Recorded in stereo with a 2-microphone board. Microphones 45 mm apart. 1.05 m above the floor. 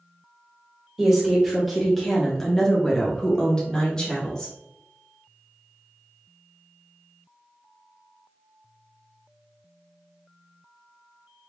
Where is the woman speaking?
5° right (ahead or behind), 1.1 m; by 4.5 s 20° left (ahead or behind), 1.5 m.